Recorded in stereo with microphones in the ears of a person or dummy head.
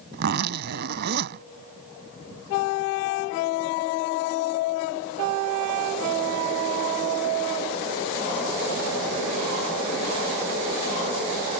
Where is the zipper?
60° right (ahead or behind).